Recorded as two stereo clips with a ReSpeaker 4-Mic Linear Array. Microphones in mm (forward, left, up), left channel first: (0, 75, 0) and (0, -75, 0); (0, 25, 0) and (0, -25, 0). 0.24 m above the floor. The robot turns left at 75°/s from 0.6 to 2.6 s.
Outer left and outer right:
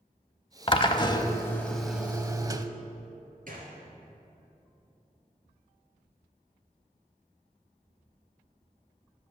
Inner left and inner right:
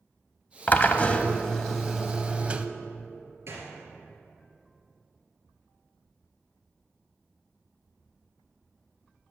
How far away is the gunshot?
About 2.5 m.